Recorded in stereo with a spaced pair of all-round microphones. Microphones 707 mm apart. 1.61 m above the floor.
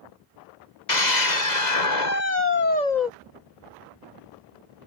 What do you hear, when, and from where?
0.9 s a scream: 75° left (ahead or behind)